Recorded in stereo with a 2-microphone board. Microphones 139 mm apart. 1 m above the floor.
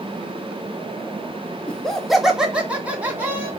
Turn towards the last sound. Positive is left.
turn(degrees=-15)  # may be behind; listen again after turning